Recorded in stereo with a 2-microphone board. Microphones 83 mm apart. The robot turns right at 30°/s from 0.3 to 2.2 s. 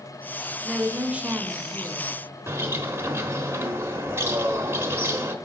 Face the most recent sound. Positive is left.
turn(degrees=-30)  # may be behind; listen again after turning